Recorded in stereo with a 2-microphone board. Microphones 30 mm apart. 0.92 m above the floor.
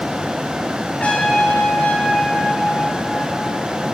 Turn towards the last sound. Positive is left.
turn(degrees=45)  # may be behind; listen again after turning